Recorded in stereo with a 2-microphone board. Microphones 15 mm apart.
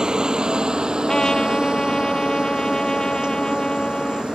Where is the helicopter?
60° right (ahead or behind); by 4.3 s 75° right (ahead or behind).